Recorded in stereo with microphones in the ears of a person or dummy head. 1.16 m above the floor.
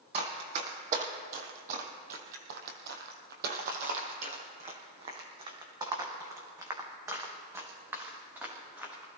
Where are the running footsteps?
30° right (ahead or behind), 2.5 m; by 9.1 s 15° right (ahead or behind), 4.5 m.